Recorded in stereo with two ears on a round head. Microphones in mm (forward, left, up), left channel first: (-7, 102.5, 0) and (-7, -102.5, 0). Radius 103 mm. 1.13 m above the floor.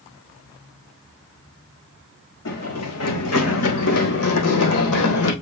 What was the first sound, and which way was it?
Running footsteps, 75° left (ahead or behind).